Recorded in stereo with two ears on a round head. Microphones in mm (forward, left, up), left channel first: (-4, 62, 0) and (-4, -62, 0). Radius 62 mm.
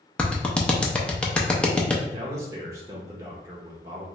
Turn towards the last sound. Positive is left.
turn(degrees=-20)  # may be behind; listen again after turning